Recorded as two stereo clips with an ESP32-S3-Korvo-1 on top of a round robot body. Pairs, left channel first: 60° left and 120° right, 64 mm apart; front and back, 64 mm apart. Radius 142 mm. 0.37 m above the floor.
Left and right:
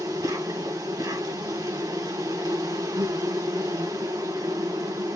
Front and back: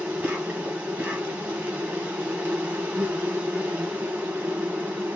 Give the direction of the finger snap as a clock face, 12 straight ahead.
No finger snap in this recording.